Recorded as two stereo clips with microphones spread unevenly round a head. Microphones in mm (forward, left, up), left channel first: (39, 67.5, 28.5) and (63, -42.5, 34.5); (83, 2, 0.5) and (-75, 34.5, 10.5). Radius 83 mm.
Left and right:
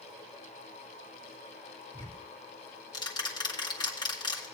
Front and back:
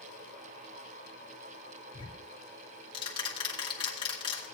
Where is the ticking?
50° left, 2.5 m.